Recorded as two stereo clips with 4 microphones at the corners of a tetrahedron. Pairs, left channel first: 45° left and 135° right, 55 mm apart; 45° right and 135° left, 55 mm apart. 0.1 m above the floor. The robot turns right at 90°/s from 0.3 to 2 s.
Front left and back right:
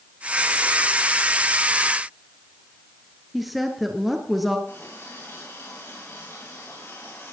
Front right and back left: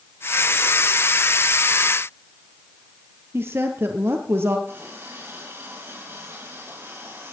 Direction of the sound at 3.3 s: 135° left.